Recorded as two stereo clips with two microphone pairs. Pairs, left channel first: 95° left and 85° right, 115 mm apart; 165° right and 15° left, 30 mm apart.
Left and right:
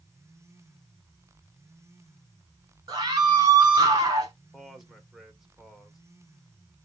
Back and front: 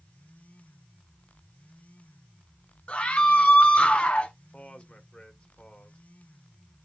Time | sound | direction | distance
2.9 | a scream | 135° right | 2.5 m
4.5 | a man speaking | 170° right | 1.3 m